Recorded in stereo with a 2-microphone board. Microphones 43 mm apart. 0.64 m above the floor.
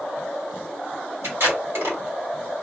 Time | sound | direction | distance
1.2 | tape being pulled | 65° right (ahead or behind) | 1.7 m